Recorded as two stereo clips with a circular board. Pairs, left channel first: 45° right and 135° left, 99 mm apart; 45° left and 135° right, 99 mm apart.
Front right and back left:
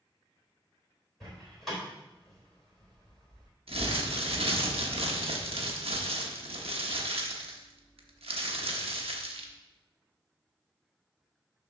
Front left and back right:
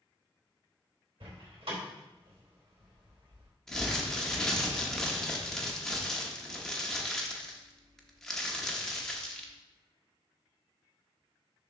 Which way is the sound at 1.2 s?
135° right.